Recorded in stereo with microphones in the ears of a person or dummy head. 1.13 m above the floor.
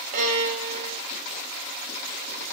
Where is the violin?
45° right (ahead or behind), 1.4 m.